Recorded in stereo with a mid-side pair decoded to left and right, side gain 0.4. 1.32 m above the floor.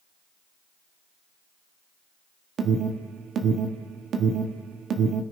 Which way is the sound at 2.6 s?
65° right.